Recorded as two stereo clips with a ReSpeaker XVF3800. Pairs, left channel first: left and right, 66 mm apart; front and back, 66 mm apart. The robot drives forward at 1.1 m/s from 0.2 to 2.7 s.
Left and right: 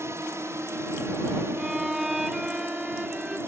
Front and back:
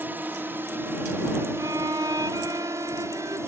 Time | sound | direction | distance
0.0 | a drone | 125° right | ?
1.6 | a violin | 170° right | ?